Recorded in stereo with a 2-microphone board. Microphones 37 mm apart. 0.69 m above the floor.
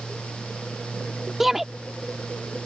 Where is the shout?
10° right (ahead or behind).